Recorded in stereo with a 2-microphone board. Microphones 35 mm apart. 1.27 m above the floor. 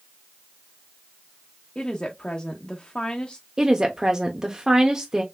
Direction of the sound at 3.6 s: 20° right (ahead or behind).